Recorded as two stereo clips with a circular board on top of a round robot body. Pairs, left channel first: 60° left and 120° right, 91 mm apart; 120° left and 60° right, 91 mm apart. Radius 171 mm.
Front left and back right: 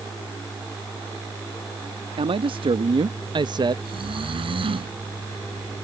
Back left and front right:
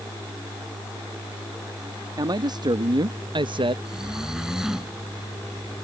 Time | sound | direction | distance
2.2 | a man speaking | 105° right | ?
3.9 | snoring | 145° right | ?